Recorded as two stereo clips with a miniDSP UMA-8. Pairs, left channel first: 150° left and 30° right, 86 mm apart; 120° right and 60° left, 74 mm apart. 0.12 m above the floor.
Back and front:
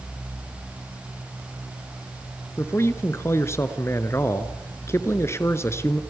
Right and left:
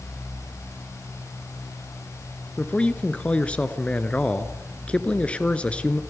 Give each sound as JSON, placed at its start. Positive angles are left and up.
{"t": 2.6, "sound": "a man speaking", "azimuth_deg": 180, "distance_m": 1.3}